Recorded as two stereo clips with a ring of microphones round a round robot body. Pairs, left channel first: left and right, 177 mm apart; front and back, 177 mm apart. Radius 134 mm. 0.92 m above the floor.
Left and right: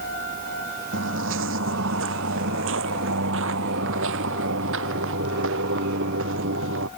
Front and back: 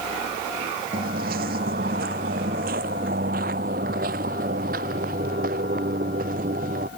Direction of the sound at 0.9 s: 125° right.